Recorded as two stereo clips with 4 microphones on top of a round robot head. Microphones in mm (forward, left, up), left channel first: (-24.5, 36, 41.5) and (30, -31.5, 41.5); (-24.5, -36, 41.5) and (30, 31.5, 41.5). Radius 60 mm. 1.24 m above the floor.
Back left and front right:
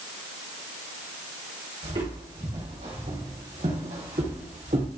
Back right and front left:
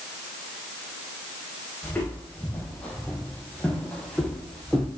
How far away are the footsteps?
About 4 m.